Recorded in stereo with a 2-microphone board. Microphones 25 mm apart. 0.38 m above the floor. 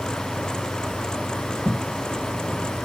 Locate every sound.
1.6 s footsteps: 30° left (ahead or behind), 1.0 m